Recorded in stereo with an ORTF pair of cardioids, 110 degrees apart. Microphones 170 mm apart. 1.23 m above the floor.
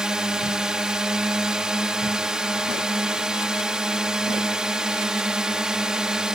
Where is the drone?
5° right.